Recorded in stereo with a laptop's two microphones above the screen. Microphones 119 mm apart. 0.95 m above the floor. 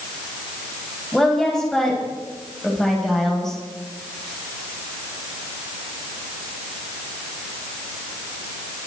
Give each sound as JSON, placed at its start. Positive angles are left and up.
{"t": 1.1, "sound": "a woman speaking", "side_deg": 5, "distance_m": 7.0}